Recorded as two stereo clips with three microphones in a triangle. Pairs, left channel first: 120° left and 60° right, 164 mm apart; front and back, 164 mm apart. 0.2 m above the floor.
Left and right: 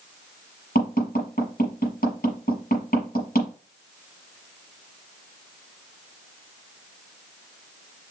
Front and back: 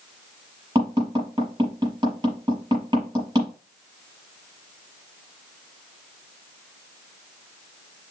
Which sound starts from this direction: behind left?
Tapping, at 0.8 s.